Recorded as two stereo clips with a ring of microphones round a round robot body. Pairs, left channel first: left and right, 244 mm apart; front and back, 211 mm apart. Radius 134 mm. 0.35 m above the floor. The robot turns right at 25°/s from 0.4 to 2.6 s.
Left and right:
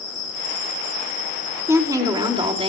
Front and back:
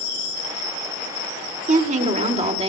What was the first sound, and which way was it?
A woman speaking, 160° right.